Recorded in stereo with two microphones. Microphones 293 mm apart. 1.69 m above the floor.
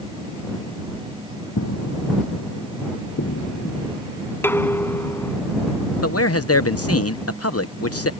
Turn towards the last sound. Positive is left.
turn(degrees=55)  # may be behind; listen again after turning